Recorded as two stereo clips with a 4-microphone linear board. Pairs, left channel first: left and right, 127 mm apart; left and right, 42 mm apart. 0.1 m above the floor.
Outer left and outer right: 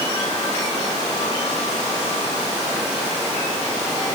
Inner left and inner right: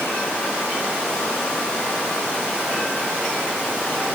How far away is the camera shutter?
I don't hear a camera shutter.